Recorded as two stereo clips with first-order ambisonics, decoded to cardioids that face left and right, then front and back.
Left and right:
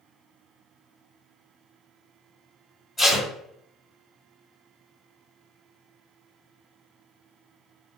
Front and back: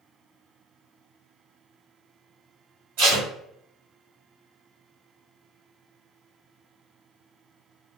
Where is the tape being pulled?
170° left, 1.5 m.